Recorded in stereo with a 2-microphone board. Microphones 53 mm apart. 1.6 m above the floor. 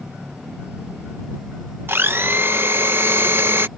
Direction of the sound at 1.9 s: 40° right (ahead or behind).